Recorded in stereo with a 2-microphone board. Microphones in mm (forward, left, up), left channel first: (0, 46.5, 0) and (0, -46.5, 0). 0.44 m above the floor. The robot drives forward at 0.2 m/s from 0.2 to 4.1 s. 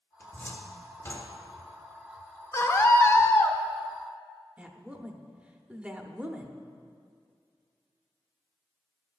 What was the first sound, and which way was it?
A cupboard door, 25° left (ahead or behind).